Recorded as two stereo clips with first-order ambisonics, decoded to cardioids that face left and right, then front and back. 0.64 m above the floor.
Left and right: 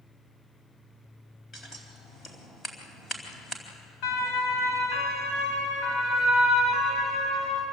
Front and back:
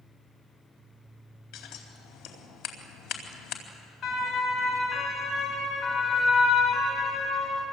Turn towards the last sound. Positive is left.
turn(degrees=55)